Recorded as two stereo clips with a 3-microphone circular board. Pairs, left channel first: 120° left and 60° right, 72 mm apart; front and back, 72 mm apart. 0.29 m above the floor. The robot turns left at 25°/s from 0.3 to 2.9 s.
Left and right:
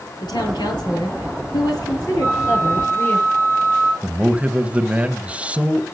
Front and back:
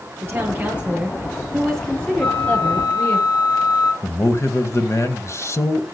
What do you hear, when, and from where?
0.2 s a woman speaking: 125° left, 5.5 m; by 3.2 s 60° left, 5.5 m
2.2 s a flute: 10° left, 4.5 m; by 3.9 s 5° right, 4.5 m
4.0 s a man speaking: straight ahead, 1.2 m